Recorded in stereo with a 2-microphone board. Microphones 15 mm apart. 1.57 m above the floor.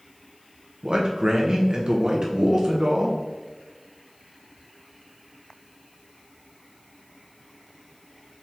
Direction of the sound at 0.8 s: 55° right (ahead or behind).